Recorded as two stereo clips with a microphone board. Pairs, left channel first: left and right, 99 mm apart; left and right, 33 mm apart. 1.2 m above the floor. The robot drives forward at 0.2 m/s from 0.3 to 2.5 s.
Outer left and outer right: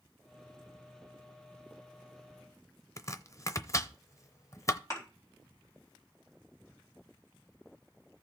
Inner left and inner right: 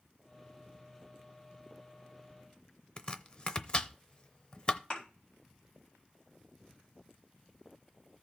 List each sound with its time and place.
3.0 s chopping: 30° left (ahead or behind), 0.7 m
4.9 s a thud: 35° left (ahead or behind), 4 m